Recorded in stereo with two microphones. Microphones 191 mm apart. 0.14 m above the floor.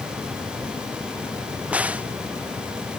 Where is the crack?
5° right (ahead or behind).